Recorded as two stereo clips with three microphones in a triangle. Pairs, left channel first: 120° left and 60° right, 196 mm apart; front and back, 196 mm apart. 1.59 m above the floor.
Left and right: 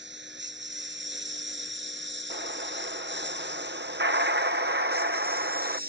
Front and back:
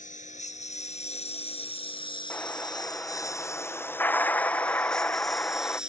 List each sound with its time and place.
0.0 s a lawn mower: 50° right; by 5.9 s 95° right
2.3 s an explosion: 80° right